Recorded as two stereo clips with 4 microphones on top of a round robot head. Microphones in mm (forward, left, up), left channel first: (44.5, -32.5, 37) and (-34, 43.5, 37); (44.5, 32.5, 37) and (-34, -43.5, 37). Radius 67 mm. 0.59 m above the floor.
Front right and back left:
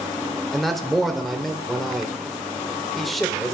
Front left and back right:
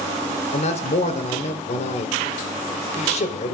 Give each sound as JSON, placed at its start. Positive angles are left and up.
{"t": 0.5, "sound": "a man speaking", "azimuth_deg": 45, "distance_m": 2.0}